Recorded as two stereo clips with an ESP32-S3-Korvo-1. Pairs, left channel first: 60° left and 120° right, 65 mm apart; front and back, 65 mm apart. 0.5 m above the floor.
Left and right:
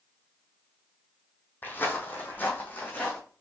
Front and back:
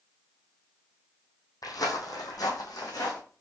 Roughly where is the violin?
No violin in this recording.